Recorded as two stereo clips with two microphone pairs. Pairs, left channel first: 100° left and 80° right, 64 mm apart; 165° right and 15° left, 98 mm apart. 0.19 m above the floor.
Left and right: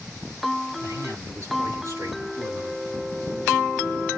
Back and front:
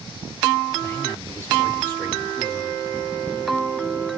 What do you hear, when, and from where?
0.8 s a man speaking: 105° right, 4 m